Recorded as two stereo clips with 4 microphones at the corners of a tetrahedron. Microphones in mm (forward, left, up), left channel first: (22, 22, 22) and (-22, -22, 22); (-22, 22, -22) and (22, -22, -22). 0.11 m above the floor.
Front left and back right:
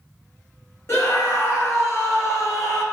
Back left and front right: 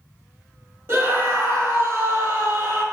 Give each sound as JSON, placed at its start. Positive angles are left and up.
{"t": 0.9, "sound": "a scream", "azimuth_deg": 5, "distance_m": 2.5}